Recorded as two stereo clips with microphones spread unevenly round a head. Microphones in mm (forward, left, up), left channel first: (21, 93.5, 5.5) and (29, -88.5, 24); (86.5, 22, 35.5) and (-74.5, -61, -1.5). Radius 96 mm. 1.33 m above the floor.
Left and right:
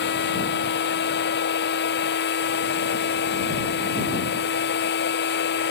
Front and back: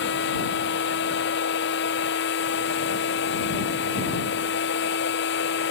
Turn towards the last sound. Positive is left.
turn(degrees=65)